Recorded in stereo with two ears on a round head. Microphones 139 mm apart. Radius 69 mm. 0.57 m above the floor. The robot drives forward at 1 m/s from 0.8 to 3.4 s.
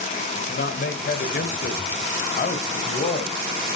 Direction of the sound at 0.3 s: 70° left (ahead or behind).